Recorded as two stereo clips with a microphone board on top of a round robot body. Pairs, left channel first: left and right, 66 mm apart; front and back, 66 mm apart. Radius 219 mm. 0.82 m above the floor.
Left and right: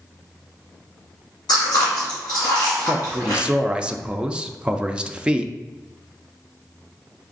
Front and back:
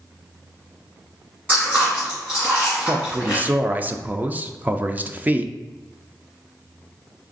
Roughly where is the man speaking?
Behind right.